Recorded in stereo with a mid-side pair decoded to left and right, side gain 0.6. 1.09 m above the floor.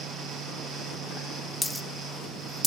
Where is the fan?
60° right, 7 m.